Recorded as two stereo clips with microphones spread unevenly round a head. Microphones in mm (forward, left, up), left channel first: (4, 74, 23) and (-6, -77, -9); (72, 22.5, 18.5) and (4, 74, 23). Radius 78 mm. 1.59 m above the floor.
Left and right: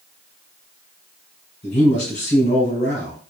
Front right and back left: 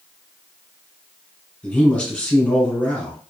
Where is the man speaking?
35° left, 1.7 m.